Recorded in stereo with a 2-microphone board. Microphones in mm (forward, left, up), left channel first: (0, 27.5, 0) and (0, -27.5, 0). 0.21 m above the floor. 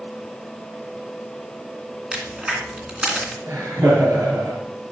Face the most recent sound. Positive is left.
turn(degrees=-65)  # may be behind; listen again after turning